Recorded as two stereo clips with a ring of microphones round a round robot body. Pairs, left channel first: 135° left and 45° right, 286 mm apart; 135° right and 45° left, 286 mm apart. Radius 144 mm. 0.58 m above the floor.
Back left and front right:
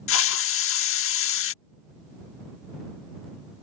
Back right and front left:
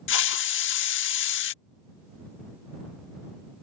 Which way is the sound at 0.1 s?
Straight behind.